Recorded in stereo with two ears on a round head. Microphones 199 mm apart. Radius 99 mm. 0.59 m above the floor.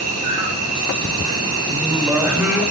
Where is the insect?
80° right, 8.5 m.